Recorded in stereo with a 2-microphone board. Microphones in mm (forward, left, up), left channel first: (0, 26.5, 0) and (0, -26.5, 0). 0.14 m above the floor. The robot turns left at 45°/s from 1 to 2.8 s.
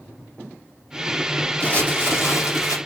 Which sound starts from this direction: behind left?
Crumpling, at 1.6 s.